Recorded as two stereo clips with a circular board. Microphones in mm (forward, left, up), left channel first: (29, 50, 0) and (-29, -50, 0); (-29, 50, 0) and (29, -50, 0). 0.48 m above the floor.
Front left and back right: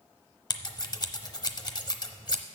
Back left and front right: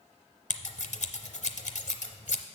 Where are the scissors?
115° left, 0.7 m.